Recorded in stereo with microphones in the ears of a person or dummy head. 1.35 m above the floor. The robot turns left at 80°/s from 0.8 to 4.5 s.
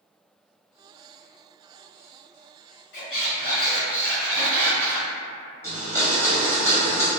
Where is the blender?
15° left (ahead or behind), 0.7 m.